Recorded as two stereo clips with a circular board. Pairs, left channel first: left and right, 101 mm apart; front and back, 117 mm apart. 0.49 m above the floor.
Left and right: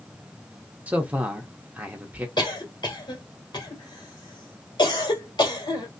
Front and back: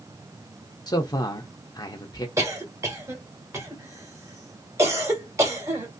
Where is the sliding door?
No sliding door in this recording.